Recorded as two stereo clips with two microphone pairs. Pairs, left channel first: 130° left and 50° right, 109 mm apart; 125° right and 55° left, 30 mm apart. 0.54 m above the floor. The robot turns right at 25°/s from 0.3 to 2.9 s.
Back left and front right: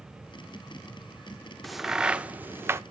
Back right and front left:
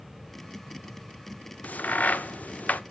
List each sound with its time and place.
1.6 s a crack: 140° right, 0.5 m; by 2.8 s 110° right, 0.5 m